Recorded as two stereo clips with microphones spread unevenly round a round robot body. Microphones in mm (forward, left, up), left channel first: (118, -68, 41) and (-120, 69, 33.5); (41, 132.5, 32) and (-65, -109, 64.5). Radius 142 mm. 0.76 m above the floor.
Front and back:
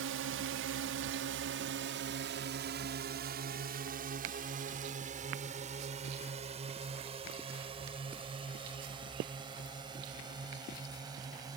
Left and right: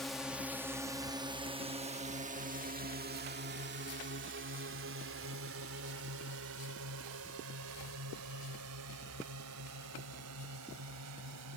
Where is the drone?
150° left; by 11.6 s 135° right.